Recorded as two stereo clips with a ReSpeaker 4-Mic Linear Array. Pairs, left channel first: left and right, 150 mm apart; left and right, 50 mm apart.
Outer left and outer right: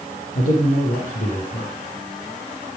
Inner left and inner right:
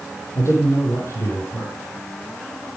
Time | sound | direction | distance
0.3 | a man speaking | 75° left (ahead or behind) | 6.5 m